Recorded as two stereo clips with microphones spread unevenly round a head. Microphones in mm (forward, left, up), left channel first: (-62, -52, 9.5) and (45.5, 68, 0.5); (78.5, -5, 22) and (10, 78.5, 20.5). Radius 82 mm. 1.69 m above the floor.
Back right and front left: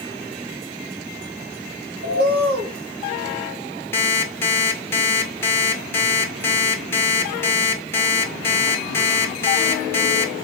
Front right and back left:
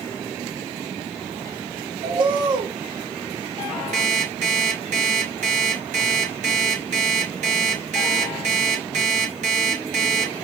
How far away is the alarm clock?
About 2.5 m.